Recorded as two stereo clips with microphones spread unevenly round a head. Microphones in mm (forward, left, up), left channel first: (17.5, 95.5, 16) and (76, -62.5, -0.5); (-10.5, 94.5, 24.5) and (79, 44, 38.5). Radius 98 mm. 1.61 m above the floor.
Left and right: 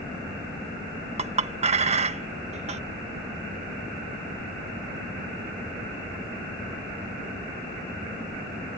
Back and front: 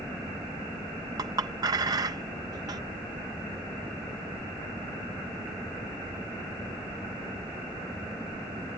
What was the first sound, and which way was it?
A clink, 30° right.